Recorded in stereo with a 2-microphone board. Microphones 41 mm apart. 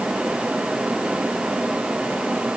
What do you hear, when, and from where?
Only background noise.